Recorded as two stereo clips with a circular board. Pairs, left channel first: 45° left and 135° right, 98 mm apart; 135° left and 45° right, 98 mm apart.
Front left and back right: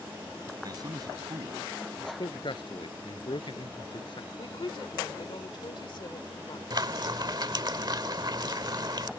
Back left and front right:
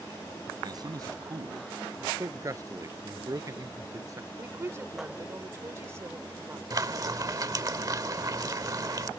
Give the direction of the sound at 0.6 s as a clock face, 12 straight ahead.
3 o'clock.